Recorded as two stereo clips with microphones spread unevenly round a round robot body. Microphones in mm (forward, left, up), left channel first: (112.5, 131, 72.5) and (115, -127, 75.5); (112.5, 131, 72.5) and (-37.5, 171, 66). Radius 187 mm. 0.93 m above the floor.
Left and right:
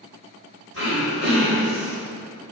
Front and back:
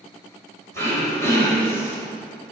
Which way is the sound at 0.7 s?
145° right.